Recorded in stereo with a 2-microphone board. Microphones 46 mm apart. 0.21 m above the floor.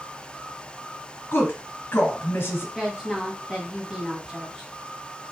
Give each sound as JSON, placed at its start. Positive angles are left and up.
{"t": 1.3, "sound": "a woman speaking", "side_deg": 50, "distance_m": 1.5}
{"t": 2.8, "sound": "a woman speaking", "side_deg": -10, "distance_m": 1.0}